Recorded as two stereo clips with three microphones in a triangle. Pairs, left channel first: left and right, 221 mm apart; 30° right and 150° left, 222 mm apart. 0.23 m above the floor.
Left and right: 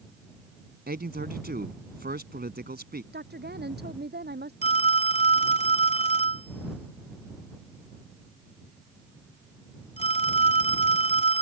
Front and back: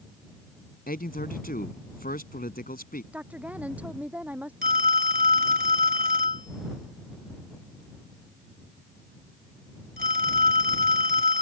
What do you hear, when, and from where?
0.9 s a man speaking: 65° right
3.1 s a woman speaking: 125° right
4.6 s a phone ringing: 135° left